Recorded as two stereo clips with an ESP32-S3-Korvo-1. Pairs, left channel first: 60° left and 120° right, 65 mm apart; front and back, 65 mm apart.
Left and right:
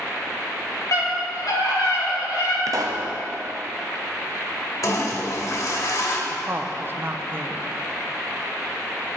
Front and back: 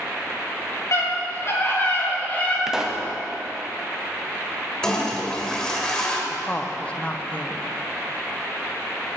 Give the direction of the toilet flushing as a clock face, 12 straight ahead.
9 o'clock.